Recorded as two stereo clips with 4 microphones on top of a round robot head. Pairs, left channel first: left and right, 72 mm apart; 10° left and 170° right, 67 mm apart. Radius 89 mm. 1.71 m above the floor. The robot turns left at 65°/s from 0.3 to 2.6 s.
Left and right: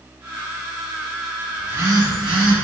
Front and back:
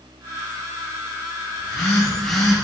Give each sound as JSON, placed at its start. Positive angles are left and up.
{"t": 1.6, "sound": "a phone buzzing", "azimuth_deg": -25, "distance_m": 1.0}